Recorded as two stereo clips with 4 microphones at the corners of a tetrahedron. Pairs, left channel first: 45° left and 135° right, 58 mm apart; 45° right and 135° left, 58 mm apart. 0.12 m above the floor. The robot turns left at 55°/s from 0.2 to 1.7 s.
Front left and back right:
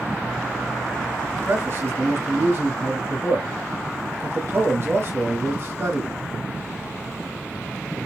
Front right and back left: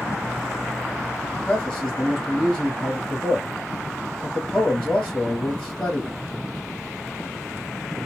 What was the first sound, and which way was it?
A man speaking, 100° right.